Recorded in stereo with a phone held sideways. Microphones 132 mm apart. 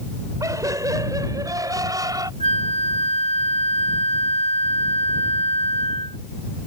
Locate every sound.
0.4 s laughter: 25° right (ahead or behind)
2.4 s a flute: 50° left (ahead or behind)